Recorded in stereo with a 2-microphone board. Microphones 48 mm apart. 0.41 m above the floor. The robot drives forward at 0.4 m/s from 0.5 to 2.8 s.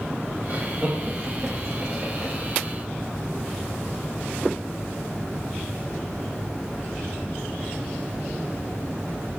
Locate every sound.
0.5 s laughter: 30° right (ahead or behind), 2 m; by 2.3 s 25° right (ahead or behind), 2.5 m